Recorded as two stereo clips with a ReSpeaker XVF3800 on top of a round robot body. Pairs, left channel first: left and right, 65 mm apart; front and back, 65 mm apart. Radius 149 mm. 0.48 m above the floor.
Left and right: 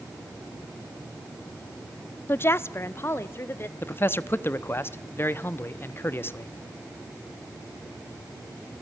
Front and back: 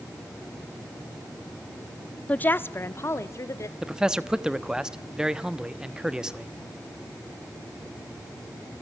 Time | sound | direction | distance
2.3 | a woman speaking | 55° left | 0.8 m
3.8 | a man speaking | 110° left | 1.2 m